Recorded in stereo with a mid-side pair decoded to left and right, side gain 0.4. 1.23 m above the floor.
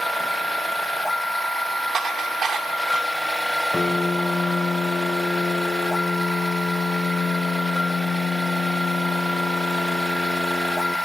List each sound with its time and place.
0.0 s a machine running: straight ahead, 1.5 m
1.9 s dishes clattering: 55° right, 1.9 m
3.7 s a piano: 25° left, 0.6 m